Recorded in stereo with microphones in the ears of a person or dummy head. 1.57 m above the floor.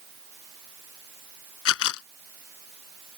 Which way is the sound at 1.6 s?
70° left (ahead or behind).